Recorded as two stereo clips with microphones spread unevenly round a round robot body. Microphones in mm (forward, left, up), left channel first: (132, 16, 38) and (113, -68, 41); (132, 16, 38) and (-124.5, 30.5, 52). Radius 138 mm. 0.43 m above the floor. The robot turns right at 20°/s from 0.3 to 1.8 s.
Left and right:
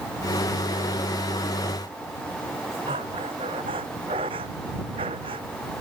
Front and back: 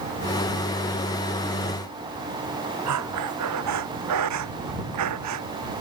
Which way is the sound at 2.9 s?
155° right.